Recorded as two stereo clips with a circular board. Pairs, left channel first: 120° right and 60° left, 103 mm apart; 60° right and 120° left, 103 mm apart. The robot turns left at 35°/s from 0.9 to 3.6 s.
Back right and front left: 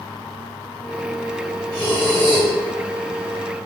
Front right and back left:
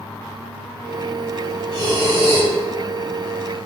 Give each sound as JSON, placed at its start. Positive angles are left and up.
{"t": 1.7, "sound": "breathing", "azimuth_deg": 85, "distance_m": 1.7}